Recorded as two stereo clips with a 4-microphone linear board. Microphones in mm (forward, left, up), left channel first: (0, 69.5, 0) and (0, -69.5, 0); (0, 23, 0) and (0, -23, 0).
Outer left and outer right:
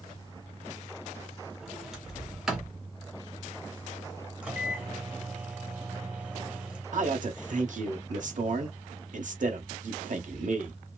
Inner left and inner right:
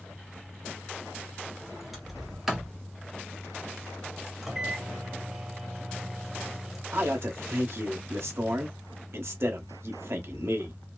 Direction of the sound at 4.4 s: 10° right (ahead or behind).